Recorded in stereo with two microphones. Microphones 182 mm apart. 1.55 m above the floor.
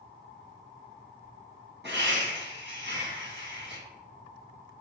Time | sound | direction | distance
1.8 | laughter | 70° right (ahead or behind) | 1.7 m